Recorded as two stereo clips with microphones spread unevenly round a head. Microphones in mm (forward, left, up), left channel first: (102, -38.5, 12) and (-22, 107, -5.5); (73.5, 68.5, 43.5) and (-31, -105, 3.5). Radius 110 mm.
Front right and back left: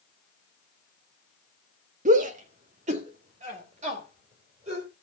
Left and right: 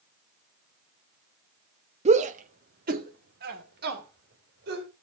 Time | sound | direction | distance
2.0 | a shout | 175° right | 1.0 m